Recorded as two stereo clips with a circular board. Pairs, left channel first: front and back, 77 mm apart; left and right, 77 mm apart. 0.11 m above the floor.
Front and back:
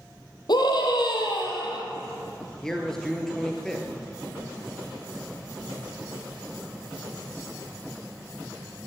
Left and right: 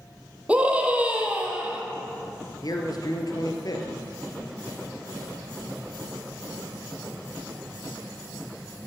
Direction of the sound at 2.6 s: 85° left.